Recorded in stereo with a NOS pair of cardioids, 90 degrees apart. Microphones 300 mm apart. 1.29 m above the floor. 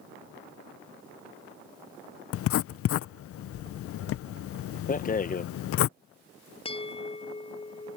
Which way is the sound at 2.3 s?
50° left.